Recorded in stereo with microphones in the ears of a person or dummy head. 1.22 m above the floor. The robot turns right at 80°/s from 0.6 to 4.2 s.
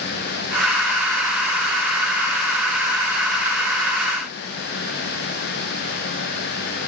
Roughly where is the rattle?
No rattle in this recording.